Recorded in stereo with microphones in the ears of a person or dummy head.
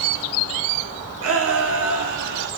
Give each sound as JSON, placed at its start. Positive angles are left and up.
{"t": 1.2, "sound": "a shout", "side_deg": -80, "distance_m": 3.0}